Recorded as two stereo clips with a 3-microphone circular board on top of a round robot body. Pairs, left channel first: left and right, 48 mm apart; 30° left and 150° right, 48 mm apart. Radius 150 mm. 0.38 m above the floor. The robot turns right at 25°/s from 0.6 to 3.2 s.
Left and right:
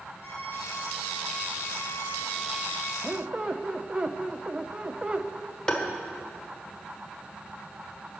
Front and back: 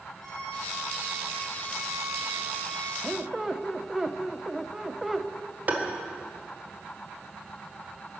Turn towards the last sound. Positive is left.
turn(degrees=160)